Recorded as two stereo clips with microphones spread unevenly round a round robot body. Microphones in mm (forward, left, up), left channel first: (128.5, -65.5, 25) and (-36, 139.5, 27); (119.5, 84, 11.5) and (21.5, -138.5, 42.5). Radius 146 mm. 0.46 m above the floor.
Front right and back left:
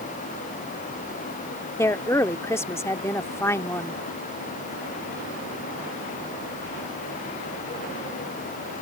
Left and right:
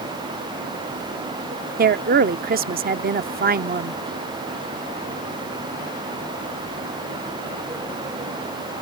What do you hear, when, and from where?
1.8 s a woman speaking: 120° right